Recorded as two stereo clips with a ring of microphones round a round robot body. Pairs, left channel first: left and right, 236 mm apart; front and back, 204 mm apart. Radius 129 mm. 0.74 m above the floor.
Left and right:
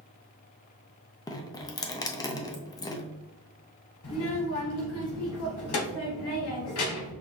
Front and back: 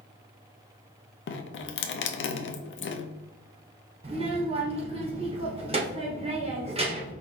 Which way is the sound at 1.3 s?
15° left.